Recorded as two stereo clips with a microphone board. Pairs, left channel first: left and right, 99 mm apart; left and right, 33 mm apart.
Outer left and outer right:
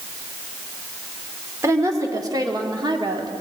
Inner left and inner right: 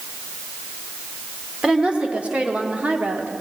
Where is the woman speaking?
30° right (ahead or behind), 1.6 m; by 3.4 s 50° right (ahead or behind), 1.3 m.